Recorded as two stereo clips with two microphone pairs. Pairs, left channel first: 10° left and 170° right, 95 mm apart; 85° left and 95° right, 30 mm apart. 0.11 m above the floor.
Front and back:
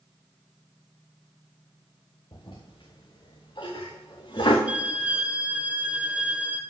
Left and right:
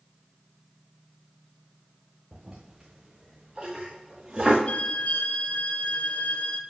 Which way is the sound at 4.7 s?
115° left.